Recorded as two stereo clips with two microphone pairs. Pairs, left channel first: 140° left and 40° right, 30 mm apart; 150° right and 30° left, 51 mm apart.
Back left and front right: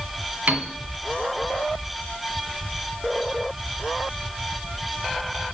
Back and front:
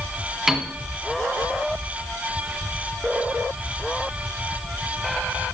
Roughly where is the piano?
Ahead right.